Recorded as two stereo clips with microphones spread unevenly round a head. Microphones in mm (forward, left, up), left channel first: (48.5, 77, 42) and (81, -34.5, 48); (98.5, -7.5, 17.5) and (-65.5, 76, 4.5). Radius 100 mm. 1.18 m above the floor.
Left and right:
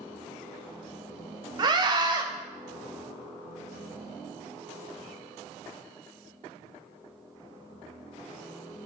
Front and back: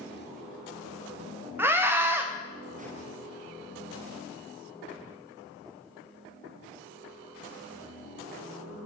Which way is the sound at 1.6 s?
130° right.